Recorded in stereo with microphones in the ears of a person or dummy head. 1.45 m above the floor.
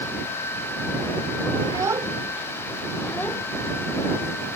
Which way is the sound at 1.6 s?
20° right (ahead or behind).